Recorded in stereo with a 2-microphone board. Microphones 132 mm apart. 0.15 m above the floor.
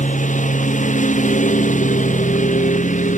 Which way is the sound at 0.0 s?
70° left (ahead or behind).